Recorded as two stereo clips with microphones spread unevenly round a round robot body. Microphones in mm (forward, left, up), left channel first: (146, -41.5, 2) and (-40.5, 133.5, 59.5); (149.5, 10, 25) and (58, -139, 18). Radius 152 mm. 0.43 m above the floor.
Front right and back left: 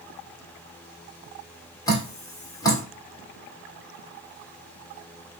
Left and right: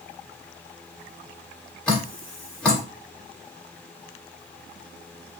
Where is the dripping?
25° right, 1.4 m.